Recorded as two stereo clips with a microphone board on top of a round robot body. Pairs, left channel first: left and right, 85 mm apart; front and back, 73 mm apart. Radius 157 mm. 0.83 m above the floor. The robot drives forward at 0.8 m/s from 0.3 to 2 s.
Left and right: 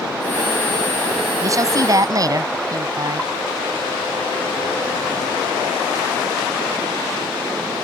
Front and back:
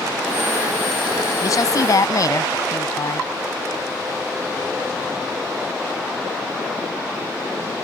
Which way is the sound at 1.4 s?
40° right.